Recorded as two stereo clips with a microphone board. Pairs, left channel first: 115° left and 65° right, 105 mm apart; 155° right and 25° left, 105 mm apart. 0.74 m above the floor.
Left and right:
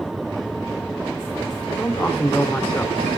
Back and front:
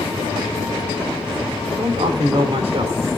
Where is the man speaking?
40° left, 2.5 m.